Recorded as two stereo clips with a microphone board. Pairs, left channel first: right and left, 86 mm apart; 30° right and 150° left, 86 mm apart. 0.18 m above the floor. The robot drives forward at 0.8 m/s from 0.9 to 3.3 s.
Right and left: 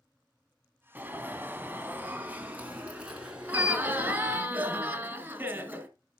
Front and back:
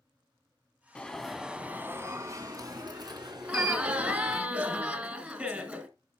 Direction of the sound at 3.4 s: 115° left.